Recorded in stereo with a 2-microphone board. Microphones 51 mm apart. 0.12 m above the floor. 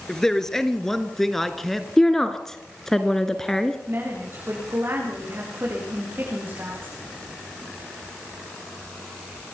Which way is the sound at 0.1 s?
10° left (ahead or behind).